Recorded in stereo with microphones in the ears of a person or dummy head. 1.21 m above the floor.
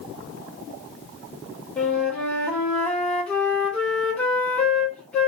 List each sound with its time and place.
1.8 s a flute: 5° left (ahead or behind), 1.1 m